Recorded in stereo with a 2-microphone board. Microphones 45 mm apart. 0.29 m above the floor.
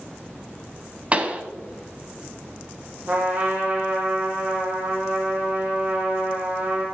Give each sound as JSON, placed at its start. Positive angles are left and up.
{"t": 1.1, "sound": "a pop", "side_deg": -30, "distance_m": 1.2}
{"t": 3.1, "sound": "a trumpet", "side_deg": -40, "distance_m": 3.0}